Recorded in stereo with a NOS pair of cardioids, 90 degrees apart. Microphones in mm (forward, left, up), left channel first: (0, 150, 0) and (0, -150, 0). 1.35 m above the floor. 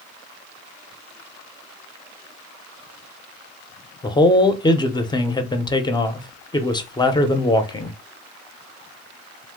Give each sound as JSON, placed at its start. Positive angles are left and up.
{"t": 4.0, "sound": "a man speaking", "azimuth_deg": 15, "distance_m": 0.6}